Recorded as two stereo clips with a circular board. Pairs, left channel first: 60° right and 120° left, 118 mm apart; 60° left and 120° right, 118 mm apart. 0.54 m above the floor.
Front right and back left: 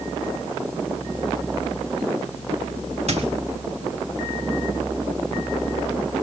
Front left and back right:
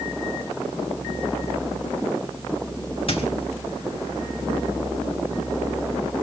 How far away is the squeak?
About 2.5 m.